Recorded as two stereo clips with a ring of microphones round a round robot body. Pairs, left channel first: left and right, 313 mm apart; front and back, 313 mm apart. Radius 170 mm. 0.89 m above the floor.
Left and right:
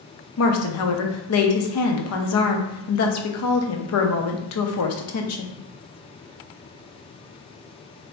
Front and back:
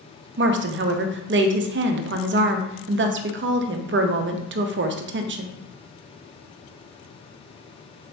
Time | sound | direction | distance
0.4 | a woman speaking | 130° left | 0.5 m